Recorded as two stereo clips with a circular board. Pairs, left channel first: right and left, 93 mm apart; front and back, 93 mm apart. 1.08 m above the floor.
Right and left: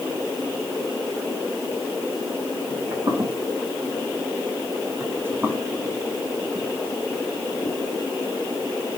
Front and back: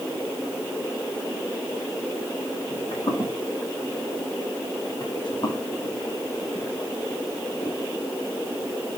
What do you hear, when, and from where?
2.7 s footsteps: 35° left, 5.5 m; by 7.8 s 45° right, 1.6 m